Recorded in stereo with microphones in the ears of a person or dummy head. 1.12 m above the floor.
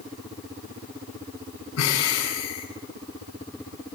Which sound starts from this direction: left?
Breathing, at 1.8 s.